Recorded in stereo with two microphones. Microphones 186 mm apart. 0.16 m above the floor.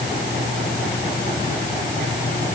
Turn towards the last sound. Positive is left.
No sound to turn to.